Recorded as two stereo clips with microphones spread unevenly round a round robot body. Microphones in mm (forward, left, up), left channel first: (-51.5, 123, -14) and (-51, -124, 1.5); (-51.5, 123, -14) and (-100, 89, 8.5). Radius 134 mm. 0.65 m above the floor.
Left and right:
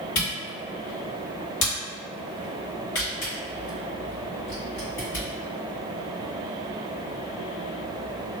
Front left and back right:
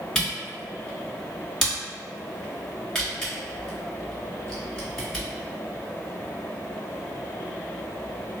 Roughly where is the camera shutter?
Left.